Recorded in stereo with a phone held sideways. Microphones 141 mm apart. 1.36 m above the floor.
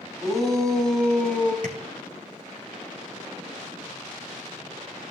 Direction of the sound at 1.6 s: 70° right (ahead or behind).